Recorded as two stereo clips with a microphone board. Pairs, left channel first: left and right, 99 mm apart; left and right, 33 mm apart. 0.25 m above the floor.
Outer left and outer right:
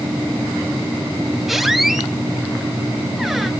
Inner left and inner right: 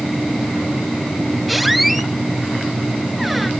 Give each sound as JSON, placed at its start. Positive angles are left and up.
{"t": 1.5, "sound": "a squeak", "side_deg": 0, "distance_m": 0.8}